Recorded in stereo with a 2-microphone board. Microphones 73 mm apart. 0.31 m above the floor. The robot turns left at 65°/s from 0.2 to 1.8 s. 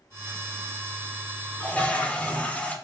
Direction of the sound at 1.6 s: 25° left (ahead or behind).